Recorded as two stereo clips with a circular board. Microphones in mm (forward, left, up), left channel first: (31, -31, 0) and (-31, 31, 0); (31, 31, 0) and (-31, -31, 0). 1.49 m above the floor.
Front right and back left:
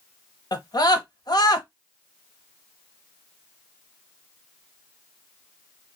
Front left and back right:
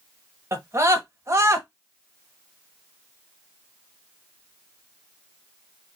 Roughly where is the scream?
Right.